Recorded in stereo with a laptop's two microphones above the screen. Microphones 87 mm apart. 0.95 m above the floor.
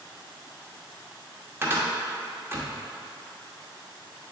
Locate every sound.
1.6 s a cupboard door: 25° right (ahead or behind), 0.8 m